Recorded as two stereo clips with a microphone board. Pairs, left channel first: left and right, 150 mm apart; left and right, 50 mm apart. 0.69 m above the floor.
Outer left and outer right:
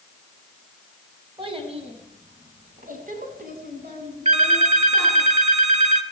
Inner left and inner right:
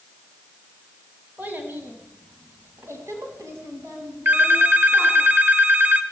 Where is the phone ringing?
45° right (ahead or behind), 1.2 m.